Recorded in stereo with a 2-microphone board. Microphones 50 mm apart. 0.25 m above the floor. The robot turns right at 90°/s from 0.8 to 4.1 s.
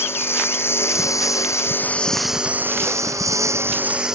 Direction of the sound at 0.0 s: 50° left.